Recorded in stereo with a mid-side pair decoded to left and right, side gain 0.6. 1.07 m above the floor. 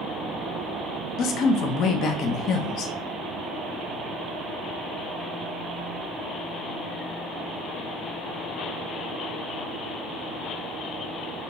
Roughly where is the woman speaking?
Ahead left.